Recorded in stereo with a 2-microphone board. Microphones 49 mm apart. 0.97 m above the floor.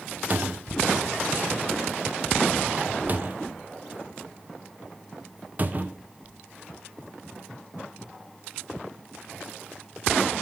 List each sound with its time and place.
0.3 s a cupboard door: 40° right (ahead or behind), 0.6 m